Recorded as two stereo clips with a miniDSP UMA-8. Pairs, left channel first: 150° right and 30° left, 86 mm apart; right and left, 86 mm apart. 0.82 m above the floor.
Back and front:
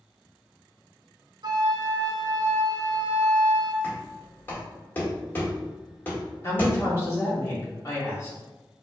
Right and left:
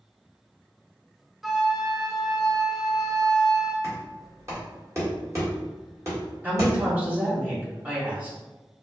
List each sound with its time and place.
1.4 s a flute: straight ahead, 0.6 m
3.8 s knocking: 145° left, 1.7 m
6.4 s a woman speaking: 160° left, 1.8 m